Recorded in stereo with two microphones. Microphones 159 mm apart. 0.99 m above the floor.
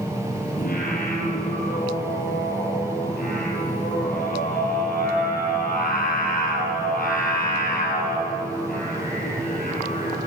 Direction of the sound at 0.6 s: 65° left (ahead or behind).